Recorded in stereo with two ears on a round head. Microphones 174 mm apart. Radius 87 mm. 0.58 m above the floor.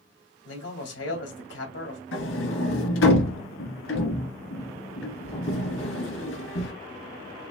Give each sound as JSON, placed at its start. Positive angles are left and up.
{"t": 0.5, "sound": "a man speaking", "side_deg": 70, "distance_m": 2.0}
{"t": 2.1, "sound": "a sliding door", "side_deg": 80, "distance_m": 1.9}